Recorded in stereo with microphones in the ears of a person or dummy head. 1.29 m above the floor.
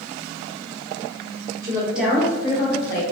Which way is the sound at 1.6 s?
20° right (ahead or behind).